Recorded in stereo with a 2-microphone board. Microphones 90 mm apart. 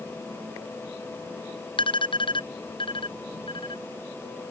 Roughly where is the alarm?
Left.